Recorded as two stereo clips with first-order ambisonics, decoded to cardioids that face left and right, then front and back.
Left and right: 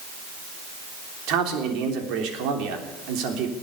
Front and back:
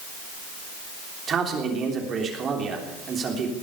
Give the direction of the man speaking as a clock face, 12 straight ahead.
4 o'clock.